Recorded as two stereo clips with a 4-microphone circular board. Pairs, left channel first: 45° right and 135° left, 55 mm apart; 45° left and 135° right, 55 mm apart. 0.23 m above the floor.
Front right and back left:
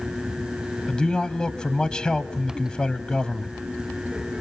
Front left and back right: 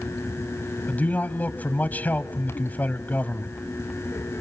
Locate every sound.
0.9 s a man speaking: 15° left, 1.0 m